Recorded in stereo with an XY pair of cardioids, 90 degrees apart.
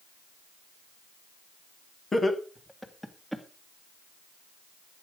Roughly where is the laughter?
Ahead left.